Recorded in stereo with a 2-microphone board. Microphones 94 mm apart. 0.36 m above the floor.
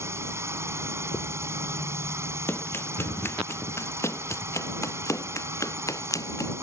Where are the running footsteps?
25° left (ahead or behind); by 6.5 s 35° left (ahead or behind).